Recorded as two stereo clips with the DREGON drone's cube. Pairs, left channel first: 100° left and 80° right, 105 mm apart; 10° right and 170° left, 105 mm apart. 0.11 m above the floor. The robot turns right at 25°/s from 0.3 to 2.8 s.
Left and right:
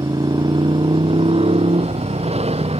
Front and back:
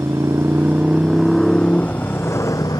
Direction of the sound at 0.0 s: 125° right.